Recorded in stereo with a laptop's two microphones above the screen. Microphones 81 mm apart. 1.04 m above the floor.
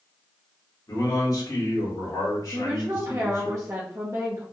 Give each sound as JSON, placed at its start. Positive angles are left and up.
{"t": 0.9, "sound": "a man speaking", "side_deg": 50, "distance_m": 1.4}
{"t": 2.5, "sound": "a woman speaking", "side_deg": -40, "distance_m": 0.7}